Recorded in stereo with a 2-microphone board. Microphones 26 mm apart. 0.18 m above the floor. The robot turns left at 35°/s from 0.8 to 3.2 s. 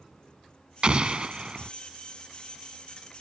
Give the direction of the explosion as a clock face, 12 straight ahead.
3 o'clock.